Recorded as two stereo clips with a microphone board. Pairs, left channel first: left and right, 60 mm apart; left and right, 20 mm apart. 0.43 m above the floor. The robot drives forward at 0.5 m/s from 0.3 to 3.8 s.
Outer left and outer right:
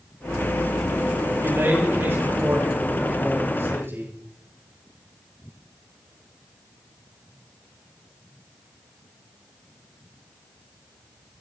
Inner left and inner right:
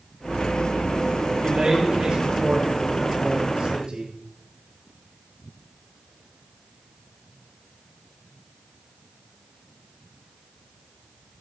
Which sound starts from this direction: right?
A man speaking, at 1.4 s.